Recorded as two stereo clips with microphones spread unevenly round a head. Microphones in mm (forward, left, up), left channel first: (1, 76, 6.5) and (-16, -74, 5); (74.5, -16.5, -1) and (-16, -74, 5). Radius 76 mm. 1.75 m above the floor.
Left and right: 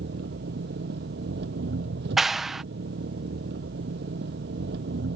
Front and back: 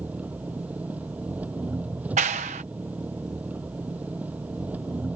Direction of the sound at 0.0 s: 70° right.